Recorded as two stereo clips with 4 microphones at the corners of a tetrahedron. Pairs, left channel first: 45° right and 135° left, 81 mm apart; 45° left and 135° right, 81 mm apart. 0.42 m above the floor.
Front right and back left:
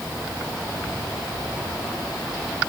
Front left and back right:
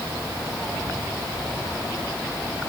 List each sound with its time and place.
Only background noise.